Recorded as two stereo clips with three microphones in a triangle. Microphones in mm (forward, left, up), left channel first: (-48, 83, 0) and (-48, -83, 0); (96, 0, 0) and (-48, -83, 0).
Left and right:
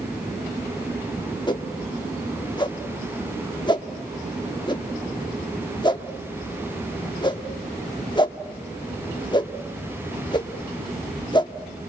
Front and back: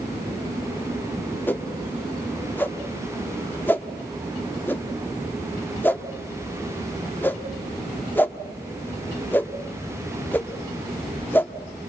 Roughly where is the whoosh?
Left.